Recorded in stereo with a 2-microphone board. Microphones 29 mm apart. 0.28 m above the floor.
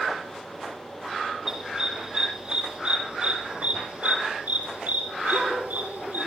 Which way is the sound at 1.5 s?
20° right (ahead or behind).